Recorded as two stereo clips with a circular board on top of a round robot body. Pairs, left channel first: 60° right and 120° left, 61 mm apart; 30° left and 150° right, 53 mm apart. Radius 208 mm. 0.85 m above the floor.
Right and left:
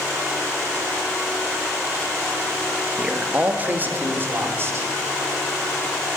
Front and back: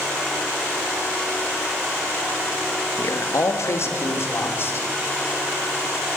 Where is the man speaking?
40° left, 2 m; by 4.9 s 75° left, 4.5 m.